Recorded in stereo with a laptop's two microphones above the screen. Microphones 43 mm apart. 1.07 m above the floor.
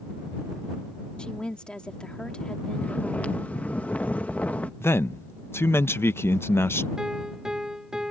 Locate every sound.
1.2 s a woman speaking: 20° left (ahead or behind)
2.7 s snoring: 35° left (ahead or behind)
4.8 s a man speaking: 65° left (ahead or behind)
7.0 s a piano: 15° right (ahead or behind)